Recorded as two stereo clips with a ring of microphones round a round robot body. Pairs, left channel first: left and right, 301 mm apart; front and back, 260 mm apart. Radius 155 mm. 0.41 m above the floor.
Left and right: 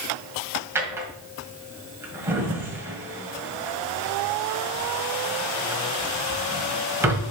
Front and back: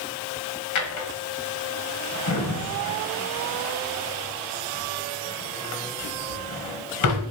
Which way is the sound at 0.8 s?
10° right.